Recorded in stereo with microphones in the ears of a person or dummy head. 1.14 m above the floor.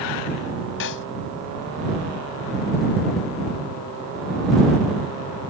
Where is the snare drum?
65° left (ahead or behind).